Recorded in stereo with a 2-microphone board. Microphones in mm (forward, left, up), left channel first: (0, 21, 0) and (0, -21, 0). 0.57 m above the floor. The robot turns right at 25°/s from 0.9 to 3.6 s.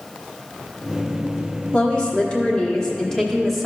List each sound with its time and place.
1.7 s a woman speaking: 125° left, 1.3 m; by 3.7 s 170° left, 1.3 m